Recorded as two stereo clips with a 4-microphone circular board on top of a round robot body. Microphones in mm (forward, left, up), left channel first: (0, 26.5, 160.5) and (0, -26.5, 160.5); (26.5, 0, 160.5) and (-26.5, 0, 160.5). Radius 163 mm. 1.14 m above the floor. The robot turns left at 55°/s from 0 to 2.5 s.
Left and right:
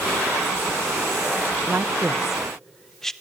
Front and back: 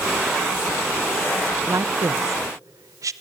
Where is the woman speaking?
140° right, 0.8 m; by 3.1 s 175° left, 0.8 m.